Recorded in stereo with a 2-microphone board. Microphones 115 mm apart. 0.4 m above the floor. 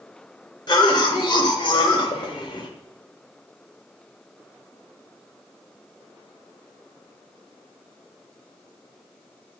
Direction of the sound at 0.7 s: 45° left (ahead or behind).